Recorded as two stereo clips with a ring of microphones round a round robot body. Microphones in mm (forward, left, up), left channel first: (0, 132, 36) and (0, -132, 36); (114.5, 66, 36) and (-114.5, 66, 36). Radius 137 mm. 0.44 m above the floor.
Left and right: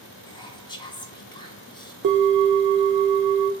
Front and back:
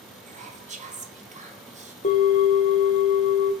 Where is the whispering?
150° left, 0.9 m.